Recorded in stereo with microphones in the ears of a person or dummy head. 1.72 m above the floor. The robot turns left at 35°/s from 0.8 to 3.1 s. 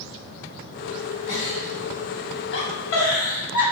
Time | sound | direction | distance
1.3 | a giggle | 40° left (ahead or behind) | 1.2 m